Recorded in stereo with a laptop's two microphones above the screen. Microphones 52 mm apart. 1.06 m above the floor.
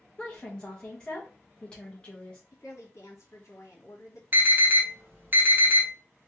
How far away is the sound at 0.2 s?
About 1.1 m.